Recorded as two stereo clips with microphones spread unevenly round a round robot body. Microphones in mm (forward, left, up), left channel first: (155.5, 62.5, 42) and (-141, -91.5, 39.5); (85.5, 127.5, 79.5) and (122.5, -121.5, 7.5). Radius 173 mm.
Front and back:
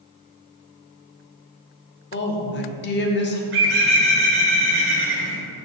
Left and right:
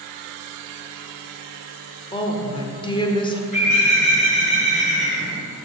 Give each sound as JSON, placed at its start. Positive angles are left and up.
{"t": 2.1, "sound": "a woman speaking", "azimuth_deg": 15, "distance_m": 0.9}
{"t": 3.5, "sound": "a bird", "azimuth_deg": 170, "distance_m": 1.7}